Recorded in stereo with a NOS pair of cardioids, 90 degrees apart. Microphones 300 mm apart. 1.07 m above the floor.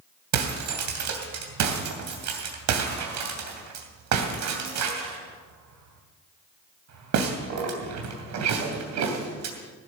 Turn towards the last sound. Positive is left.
turn(degrees=-70)